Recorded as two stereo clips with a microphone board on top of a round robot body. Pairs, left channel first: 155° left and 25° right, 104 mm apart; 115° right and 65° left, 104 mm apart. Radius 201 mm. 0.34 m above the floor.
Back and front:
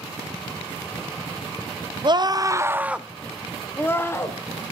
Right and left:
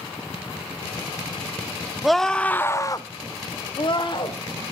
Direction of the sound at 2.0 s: 20° right.